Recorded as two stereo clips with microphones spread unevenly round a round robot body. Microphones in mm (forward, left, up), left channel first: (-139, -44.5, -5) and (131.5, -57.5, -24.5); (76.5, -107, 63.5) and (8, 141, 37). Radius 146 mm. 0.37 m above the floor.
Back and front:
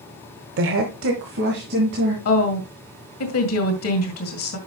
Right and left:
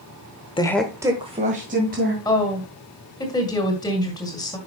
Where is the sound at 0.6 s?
5° right, 1.1 m; by 2.1 s 55° left, 3 m.